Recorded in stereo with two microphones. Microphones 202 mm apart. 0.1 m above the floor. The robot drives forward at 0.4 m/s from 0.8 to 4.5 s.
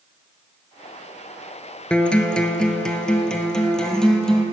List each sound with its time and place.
1.9 s a guitar: 5° left (ahead or behind), 0.8 m